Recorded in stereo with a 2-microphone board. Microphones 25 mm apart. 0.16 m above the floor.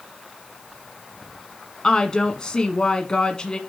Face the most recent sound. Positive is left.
turn(degrees=30)  # may be behind; listen again after turning